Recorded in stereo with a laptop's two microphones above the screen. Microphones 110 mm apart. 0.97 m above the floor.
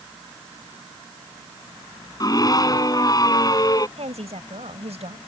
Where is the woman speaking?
85° right.